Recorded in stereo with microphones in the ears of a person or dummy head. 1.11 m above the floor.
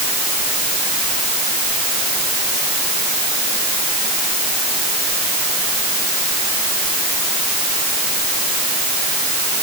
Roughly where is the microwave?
I don't hear a microwave.